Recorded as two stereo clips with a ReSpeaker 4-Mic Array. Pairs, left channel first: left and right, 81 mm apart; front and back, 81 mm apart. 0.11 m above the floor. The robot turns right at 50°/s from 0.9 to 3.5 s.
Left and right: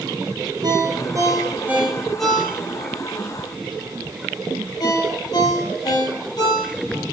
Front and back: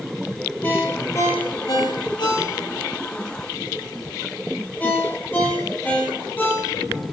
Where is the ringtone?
65° right, 2 m; by 7.0 s 65° left, 2 m.